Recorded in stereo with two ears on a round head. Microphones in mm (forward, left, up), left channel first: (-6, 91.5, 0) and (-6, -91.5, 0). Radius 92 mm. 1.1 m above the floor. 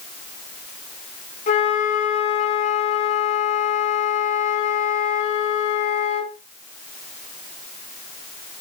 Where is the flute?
40° left (ahead or behind), 5.5 m.